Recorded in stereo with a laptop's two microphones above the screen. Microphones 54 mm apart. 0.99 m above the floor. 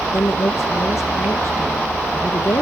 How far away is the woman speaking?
About 0.7 m.